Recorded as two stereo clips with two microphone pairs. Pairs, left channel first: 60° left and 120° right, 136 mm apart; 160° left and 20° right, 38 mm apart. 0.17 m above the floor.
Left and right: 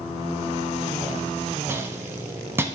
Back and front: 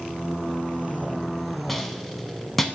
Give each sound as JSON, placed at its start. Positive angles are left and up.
{"t": 1.7, "sound": "a rattle", "azimuth_deg": -135, "distance_m": 0.6}